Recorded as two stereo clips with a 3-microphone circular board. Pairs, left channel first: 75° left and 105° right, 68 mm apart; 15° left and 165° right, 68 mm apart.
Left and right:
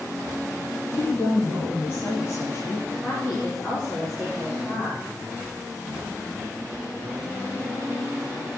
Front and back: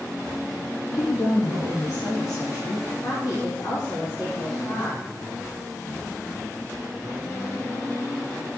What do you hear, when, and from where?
0.9 s a woman speaking: 20° left, 4.5 m
3.0 s a woman speaking: 10° right, 4.5 m